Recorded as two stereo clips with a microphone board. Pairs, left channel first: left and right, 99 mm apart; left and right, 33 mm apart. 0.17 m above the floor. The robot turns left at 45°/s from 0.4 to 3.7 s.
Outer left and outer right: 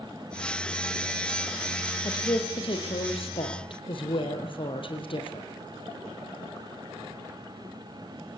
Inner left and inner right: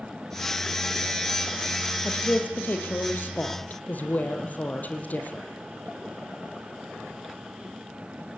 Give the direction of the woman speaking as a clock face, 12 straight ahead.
7 o'clock.